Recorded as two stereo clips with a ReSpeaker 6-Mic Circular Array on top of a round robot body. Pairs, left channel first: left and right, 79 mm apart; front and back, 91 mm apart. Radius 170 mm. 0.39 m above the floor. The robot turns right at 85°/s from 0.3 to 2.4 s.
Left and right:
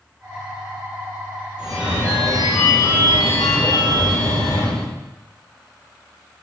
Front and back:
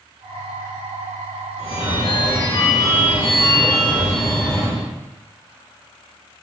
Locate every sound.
1.6 s a phone ringing: 10° right, 1.5 m; by 4.9 s 60° left, 1.5 m